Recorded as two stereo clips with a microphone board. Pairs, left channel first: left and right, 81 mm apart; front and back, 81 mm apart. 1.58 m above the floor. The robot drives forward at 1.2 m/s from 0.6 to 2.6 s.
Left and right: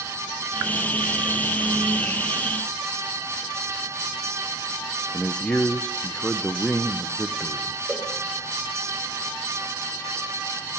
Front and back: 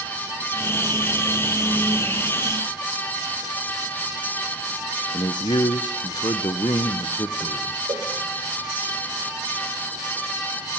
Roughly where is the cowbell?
Behind.